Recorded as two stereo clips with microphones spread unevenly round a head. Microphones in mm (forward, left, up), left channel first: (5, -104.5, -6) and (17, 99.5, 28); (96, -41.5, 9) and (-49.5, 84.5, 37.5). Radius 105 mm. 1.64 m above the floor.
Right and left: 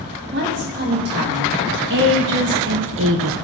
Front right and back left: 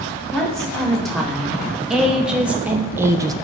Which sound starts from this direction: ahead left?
A woman speaking, at 0.3 s.